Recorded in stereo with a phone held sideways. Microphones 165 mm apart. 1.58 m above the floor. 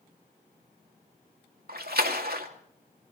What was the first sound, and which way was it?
A splash, 70° right (ahead or behind).